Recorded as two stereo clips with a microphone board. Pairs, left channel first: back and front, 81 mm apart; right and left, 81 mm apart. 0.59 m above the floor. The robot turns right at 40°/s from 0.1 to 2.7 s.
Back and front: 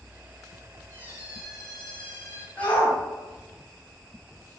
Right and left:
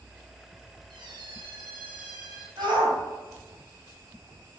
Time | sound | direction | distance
0.9 | a squeak | 60° left | 3 m
2.6 | a shout | 110° left | 3.5 m